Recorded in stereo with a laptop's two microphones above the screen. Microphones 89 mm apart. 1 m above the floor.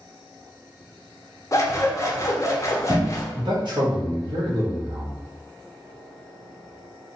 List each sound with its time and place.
1.5 s scissors: 35° left (ahead or behind), 0.6 m
3.4 s a man speaking: 55° right (ahead or behind), 0.9 m